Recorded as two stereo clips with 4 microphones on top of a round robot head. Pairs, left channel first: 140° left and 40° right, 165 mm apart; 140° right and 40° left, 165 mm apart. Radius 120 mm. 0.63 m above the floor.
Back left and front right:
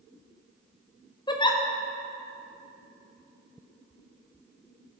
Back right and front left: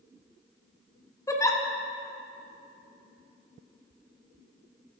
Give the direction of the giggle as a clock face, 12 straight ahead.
6 o'clock.